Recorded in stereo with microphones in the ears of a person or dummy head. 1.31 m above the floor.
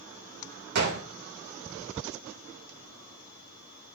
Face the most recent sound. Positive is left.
turn(degrees=-55)  # may be behind; listen again after turning